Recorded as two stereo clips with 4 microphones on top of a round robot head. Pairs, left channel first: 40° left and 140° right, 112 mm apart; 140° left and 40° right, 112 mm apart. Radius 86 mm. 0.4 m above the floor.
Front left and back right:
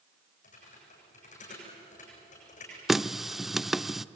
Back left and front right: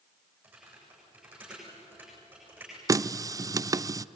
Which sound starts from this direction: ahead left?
Typing on a keyboard, at 0.4 s.